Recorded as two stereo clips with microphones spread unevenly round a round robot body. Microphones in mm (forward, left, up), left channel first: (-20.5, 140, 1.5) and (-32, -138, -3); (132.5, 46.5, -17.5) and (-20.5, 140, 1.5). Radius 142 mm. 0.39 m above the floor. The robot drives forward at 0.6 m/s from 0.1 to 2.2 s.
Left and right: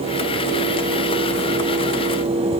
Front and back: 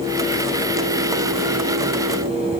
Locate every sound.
Only background noise.